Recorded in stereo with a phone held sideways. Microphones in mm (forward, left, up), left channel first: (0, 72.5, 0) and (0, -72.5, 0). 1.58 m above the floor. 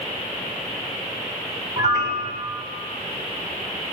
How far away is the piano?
About 7.5 m.